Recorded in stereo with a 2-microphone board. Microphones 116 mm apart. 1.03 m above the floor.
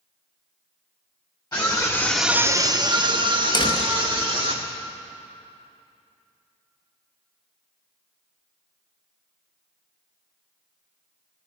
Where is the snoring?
I don't hear snoring.